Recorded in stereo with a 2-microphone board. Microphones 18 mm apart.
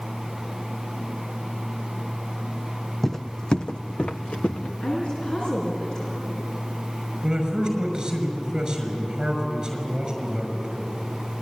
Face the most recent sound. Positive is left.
turn(degrees=-35)  # may be behind; listen again after turning